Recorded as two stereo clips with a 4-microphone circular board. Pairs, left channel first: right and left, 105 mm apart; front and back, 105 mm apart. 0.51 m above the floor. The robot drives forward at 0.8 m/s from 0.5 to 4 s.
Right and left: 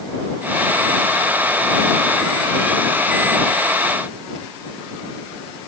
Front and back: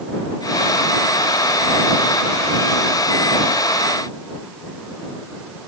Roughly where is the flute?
No flute in this recording.